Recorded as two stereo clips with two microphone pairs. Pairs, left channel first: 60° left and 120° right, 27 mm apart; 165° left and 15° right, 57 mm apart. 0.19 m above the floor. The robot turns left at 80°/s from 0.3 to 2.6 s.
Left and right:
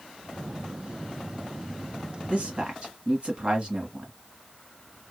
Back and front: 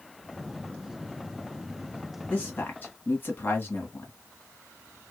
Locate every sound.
2.3 s a man speaking: 130° right, 1.6 m; by 4.1 s 155° right, 1.6 m